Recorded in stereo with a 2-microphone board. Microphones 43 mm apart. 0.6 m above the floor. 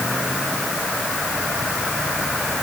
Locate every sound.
Only background noise.